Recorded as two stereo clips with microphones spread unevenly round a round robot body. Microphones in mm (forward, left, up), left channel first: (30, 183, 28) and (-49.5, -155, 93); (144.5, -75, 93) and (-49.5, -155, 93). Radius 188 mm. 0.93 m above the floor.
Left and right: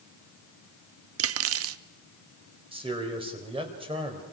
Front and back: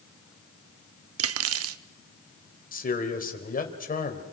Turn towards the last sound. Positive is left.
turn(degrees=-25)